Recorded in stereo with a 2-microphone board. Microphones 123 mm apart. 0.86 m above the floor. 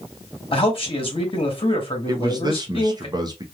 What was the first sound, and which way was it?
A man speaking, 45° left (ahead or behind).